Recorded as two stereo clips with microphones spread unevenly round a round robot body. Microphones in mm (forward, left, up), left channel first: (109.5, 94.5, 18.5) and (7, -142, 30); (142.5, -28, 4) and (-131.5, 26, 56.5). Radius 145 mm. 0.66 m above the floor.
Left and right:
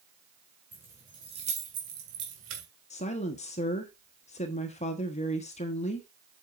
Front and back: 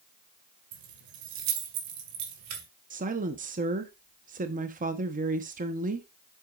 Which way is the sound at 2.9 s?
110° left.